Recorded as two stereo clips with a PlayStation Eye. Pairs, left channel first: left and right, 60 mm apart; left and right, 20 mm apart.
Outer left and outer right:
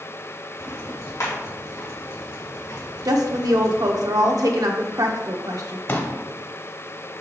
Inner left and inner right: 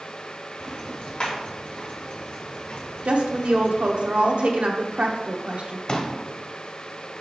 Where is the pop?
40° left (ahead or behind), 0.8 m.